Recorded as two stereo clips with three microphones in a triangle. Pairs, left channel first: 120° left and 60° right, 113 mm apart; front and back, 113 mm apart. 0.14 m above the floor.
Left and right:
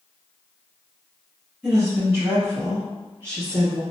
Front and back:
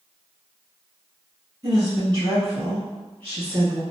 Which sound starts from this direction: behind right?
A woman speaking, at 1.6 s.